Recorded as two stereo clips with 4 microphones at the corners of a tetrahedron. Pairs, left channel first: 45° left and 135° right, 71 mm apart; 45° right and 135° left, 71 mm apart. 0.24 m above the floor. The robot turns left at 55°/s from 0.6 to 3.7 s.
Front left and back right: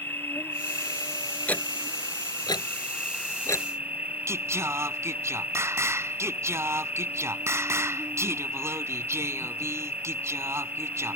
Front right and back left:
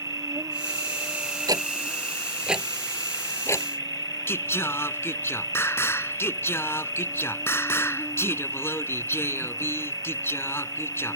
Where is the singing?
90° right.